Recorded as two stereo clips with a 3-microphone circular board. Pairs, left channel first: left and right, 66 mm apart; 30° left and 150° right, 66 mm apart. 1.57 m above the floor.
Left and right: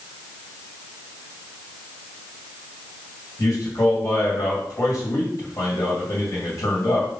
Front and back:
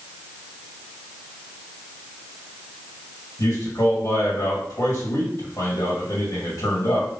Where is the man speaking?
55° left, 2.5 m.